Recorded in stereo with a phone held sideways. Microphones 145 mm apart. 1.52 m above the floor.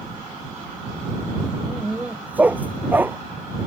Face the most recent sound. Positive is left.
turn(degrees=-15)  # may be behind; listen again after turning